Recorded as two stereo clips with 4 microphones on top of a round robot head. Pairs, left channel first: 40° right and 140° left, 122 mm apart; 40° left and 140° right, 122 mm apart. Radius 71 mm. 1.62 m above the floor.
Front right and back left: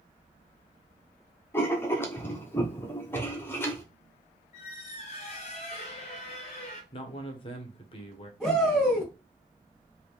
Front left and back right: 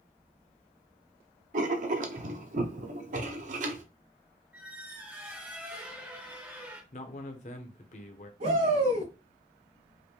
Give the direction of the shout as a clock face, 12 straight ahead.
4 o'clock.